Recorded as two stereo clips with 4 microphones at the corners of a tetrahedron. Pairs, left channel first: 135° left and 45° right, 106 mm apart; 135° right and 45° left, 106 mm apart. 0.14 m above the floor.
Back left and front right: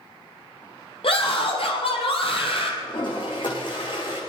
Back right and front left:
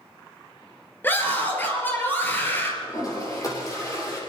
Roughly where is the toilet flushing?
Behind.